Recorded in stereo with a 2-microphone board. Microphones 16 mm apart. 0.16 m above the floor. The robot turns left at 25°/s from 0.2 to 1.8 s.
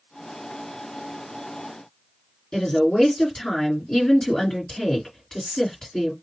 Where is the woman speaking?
50° left (ahead or behind), 2.5 m.